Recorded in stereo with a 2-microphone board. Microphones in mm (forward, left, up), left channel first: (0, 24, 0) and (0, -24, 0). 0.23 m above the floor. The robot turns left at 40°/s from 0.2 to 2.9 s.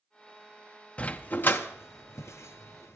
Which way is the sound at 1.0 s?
25° left (ahead or behind).